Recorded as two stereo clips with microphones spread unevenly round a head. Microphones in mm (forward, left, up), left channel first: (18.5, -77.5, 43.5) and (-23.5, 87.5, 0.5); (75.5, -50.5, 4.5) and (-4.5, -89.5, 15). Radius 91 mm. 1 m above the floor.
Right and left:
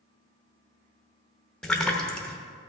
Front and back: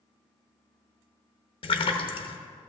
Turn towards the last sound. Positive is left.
turn(degrees=15)